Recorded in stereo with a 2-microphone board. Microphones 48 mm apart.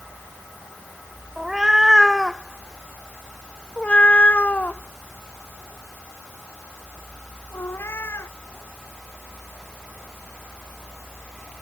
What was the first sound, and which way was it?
A cat meowing, 10° right (ahead or behind).